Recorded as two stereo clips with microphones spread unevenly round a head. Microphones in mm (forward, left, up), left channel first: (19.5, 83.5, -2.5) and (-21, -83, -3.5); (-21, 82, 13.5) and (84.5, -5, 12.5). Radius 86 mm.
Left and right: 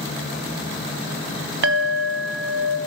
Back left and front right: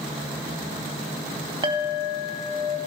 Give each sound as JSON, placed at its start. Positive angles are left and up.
{"t": 1.6, "sound": "a clink", "azimuth_deg": -105, "distance_m": 1.5}